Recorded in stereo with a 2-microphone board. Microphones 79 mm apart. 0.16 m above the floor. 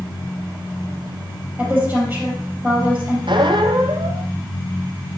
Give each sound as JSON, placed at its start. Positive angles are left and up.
{"t": 1.6, "sound": "a woman speaking", "side_deg": -25, "distance_m": 4.5}
{"t": 3.3, "sound": "a squeak", "side_deg": -85, "distance_m": 0.9}